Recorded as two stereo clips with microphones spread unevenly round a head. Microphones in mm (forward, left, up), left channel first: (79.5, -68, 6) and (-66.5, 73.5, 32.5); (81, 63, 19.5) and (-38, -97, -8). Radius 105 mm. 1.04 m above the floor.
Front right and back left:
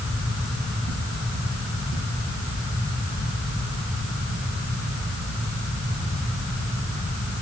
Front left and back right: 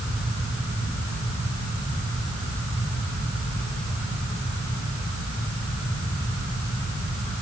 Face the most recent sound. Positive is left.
No sound to turn to.